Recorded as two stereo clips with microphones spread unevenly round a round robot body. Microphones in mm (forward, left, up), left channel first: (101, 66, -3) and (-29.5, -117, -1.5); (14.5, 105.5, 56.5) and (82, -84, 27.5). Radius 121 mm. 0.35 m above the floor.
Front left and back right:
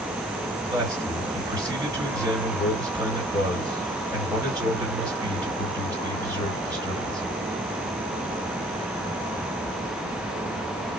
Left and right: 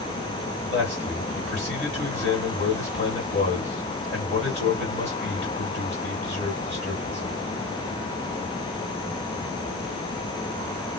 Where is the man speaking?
165° left, 2 m.